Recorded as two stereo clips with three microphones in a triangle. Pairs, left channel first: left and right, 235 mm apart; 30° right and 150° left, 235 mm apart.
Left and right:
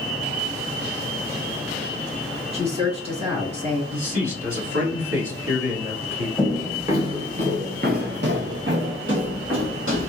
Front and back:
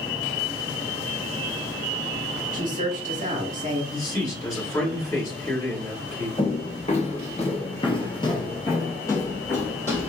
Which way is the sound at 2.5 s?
155° right.